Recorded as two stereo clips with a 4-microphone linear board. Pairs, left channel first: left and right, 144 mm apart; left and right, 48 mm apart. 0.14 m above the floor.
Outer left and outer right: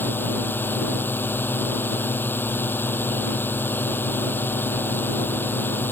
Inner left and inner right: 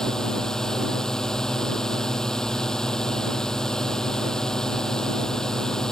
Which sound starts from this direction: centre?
A drone, at 0.0 s.